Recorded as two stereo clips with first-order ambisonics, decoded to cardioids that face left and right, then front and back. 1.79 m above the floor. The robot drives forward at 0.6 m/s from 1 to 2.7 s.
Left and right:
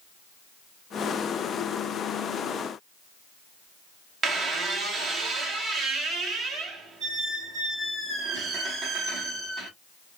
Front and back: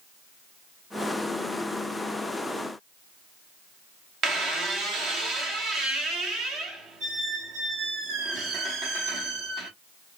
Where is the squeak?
145° right, 0.9 m.